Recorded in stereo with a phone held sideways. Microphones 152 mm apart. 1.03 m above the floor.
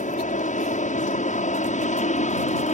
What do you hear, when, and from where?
0.0 s an aircraft: 55° left (ahead or behind)